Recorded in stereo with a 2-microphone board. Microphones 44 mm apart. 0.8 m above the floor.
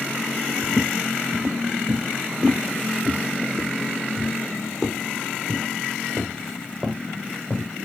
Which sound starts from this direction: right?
Footsteps, at 0.6 s.